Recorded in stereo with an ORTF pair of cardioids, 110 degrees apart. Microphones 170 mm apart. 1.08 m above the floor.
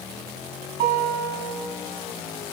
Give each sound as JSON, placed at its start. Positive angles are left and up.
{"t": 0.8, "sound": "a guitar", "azimuth_deg": -70, "distance_m": 4.5}